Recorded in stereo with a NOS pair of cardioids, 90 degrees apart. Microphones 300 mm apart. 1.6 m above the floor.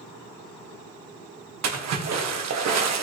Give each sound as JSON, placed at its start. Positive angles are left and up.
{"t": 1.6, "sound": "a splash", "azimuth_deg": -60, "distance_m": 1.7}